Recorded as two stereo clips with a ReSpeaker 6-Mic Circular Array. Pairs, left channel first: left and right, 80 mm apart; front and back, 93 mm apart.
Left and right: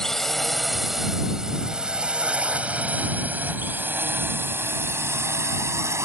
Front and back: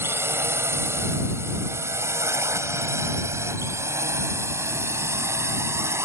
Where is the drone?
170° left; by 6.1 s 130° right.